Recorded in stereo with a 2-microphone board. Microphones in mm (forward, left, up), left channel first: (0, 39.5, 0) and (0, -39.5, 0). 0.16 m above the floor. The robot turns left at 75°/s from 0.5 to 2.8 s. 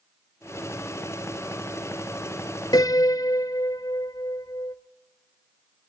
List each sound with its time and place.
2.7 s a piano: 55° left (ahead or behind), 0.9 m; by 4.8 s 50° left (ahead or behind), 0.9 m